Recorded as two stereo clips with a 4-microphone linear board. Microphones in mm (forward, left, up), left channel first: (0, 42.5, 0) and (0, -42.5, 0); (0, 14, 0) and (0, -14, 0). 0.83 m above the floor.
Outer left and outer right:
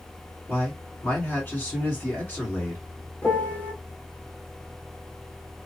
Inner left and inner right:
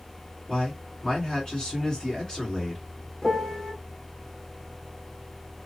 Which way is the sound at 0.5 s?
20° left (ahead or behind).